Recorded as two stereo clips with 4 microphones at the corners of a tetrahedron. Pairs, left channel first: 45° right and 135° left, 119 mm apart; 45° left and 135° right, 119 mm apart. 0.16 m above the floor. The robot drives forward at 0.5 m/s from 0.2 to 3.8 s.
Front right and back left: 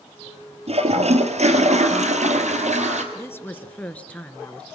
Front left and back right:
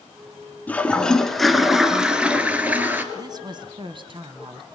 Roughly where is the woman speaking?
Right.